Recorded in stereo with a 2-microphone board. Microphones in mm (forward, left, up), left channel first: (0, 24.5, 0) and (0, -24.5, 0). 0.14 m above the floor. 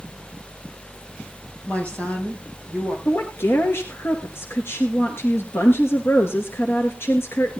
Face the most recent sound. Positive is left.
turn(degrees=55)  # may be behind; listen again after turning